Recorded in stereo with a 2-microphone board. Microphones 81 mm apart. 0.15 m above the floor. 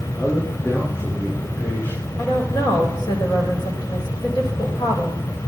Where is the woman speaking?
55° left (ahead or behind), 6 m.